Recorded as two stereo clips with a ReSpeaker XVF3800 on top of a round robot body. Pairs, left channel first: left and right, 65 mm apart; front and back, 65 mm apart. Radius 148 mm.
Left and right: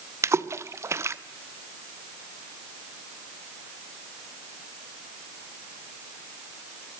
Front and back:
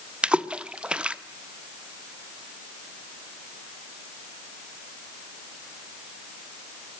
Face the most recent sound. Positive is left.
turn(degrees=-110)